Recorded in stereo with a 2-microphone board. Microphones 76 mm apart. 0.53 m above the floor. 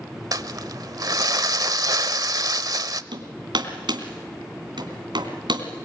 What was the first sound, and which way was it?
Crumpling, 55° right (ahead or behind).